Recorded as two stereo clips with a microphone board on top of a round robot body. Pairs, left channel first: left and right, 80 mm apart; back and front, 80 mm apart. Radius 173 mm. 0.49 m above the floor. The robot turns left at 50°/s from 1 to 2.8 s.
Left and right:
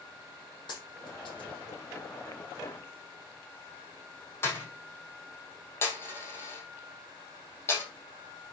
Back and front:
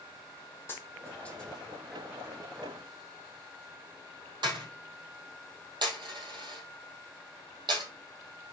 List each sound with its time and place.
0.7 s a dropped coin: 120° left, 4 m; by 7.8 s 30° left, 4 m